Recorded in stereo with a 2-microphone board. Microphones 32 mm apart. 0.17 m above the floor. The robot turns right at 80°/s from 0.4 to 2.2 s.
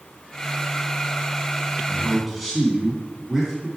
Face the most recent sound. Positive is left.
turn(degrees=0)  # may be behind; listen again after turning